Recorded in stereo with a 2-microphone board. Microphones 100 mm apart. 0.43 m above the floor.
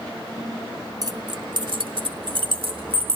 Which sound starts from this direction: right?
Keys jangling, at 1.0 s.